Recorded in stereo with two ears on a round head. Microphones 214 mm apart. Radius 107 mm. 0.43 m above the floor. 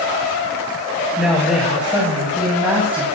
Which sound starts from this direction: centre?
A woman speaking, at 1.2 s.